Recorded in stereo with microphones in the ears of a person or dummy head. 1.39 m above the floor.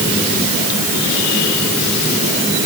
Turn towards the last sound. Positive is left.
No sound to turn to.